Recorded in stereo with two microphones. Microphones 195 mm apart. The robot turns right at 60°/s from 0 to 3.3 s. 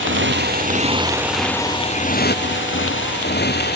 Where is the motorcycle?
85° right; by 3.8 s 60° left (ahead or behind).